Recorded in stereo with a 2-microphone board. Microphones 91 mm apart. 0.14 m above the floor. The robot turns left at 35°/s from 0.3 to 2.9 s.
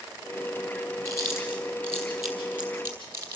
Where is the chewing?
35° left (ahead or behind), 4 m; by 3.4 s 25° right (ahead or behind), 4 m.